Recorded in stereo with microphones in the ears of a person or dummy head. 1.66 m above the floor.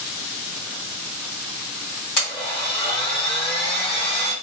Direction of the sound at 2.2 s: 30° left (ahead or behind).